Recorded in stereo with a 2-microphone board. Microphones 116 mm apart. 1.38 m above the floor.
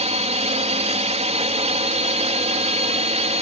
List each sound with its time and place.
0.0 s a drone: 70° right (ahead or behind)